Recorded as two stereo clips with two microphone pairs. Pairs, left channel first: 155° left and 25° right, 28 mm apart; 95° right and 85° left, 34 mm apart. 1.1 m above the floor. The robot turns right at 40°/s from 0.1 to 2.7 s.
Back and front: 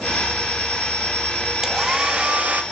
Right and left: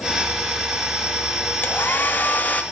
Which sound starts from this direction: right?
A hair dryer, at 1.6 s.